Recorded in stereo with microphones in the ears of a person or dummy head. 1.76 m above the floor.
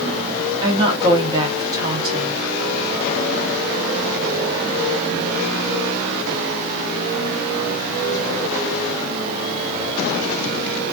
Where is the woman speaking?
25° right (ahead or behind), 1.1 m.